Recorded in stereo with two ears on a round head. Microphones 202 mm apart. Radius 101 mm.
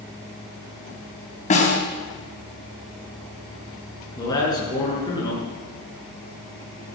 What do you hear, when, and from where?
1.5 s a snare drum: 35° left (ahead or behind), 4 m
4.2 s a man speaking: 20° left (ahead or behind), 7 m